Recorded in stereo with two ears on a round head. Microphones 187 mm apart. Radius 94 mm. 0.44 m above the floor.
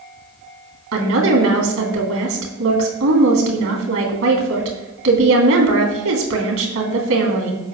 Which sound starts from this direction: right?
A woman speaking, at 0.9 s.